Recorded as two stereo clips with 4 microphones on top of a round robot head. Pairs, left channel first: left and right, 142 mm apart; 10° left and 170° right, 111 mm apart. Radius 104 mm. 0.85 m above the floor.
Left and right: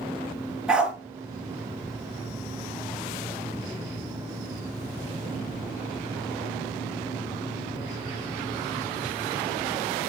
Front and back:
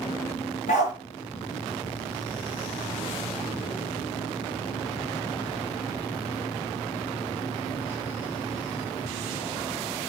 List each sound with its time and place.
0.7 s a dog barking: 5° right, 5.5 m